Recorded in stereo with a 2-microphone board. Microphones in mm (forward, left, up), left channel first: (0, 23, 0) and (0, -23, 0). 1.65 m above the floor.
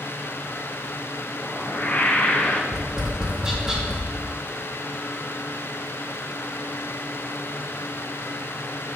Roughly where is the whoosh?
Left.